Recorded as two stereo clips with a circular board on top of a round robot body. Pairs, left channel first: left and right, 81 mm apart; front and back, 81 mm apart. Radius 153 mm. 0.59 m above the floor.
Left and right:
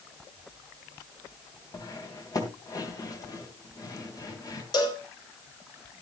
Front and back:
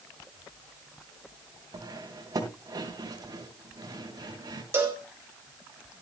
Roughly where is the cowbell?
Behind left.